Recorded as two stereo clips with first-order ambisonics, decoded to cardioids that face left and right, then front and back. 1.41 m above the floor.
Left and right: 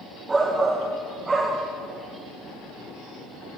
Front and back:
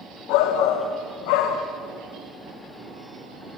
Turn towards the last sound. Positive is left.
turn(degrees=-10)